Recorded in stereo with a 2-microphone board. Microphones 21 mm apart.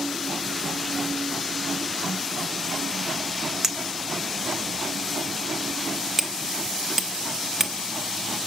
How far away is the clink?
About 0.9 m.